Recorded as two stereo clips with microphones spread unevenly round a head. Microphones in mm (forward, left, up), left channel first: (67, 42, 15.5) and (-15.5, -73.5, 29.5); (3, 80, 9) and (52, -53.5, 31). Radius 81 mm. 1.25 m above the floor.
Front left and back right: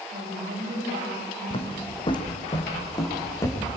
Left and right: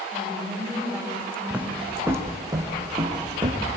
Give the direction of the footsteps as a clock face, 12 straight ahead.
12 o'clock.